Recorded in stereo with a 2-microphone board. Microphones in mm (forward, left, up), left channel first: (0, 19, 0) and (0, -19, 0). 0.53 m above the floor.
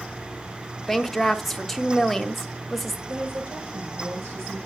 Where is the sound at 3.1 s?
85° right, 8.5 m.